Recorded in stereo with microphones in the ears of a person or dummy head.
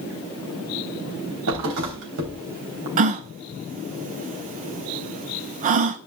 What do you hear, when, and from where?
1.5 s a thud: 85° right, 3.5 m
3.0 s a gasp: 30° right (ahead or behind), 0.6 m